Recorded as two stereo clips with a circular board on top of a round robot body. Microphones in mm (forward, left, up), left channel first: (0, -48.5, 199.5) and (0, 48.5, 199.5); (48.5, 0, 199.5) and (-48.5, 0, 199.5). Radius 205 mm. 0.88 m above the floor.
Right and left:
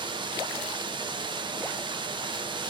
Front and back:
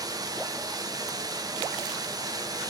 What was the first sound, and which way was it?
Running water, 130° left.